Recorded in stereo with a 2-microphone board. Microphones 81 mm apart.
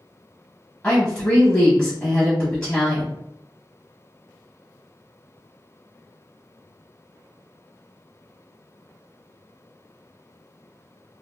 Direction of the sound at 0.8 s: 15° left (ahead or behind).